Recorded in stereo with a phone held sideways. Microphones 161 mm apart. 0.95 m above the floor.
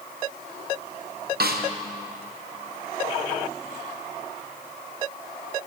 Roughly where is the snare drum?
Right.